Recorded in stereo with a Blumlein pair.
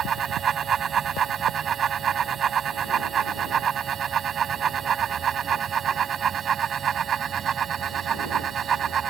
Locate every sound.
0.0 s a fan: 20° right